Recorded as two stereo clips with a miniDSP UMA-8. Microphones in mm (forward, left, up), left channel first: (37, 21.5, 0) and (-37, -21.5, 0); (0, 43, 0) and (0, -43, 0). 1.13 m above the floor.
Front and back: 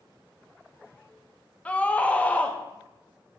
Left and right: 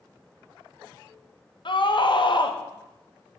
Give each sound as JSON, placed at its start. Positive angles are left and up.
{"t": 1.6, "sound": "a scream", "azimuth_deg": 105, "distance_m": 1.2}